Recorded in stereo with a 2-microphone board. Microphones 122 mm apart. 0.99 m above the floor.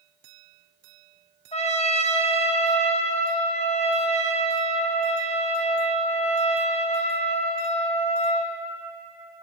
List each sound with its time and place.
1.5 s a trumpet: 60° left (ahead or behind), 0.7 m